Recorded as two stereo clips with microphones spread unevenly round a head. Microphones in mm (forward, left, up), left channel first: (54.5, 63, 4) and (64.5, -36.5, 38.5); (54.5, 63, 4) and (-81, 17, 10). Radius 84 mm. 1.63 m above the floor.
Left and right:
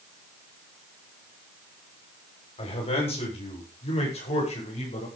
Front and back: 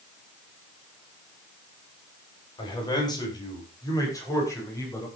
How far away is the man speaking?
About 8 m.